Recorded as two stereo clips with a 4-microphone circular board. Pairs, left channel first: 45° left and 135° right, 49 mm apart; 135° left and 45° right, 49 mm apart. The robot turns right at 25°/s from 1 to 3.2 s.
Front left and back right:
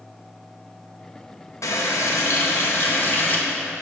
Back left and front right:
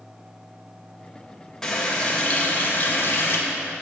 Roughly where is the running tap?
Ahead left.